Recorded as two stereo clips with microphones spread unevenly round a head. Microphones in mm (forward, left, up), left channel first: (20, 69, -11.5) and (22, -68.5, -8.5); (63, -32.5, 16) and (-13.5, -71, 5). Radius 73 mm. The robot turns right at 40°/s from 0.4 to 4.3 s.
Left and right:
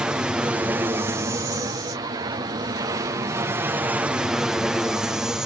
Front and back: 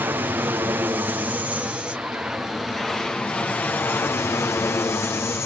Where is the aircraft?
165° right; by 5.5 s 10° right.